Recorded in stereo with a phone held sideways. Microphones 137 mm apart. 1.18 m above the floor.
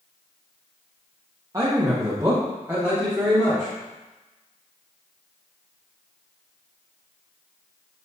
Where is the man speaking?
25° right (ahead or behind), 0.6 m; by 3.7 s 15° right (ahead or behind), 1.8 m.